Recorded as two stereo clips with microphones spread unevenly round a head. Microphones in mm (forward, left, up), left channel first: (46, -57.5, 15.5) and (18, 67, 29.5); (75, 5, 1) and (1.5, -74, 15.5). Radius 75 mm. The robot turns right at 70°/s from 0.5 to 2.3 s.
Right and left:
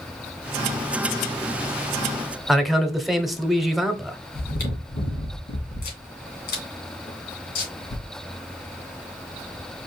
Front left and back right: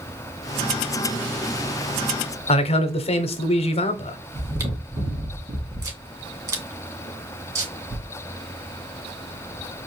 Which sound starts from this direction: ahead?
A man speaking, at 2.5 s.